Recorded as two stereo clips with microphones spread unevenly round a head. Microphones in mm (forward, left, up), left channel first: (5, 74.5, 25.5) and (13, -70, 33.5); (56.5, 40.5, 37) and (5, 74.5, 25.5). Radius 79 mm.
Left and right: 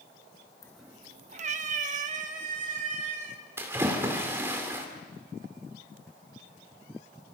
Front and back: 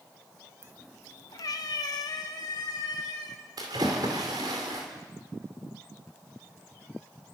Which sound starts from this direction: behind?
A splash, at 3.6 s.